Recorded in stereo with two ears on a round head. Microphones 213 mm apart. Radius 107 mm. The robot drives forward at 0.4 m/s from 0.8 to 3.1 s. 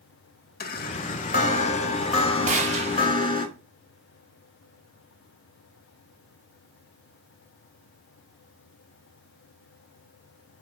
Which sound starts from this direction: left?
A chime, at 0.6 s.